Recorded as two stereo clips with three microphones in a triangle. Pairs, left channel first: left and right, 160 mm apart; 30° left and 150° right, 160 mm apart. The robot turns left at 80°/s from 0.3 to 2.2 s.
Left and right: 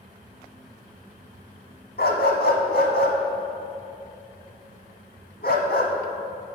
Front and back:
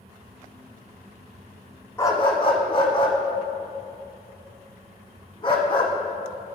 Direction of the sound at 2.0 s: 105° left.